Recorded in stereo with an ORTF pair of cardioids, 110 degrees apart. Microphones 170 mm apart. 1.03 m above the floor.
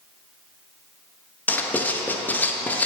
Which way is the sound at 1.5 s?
10° left.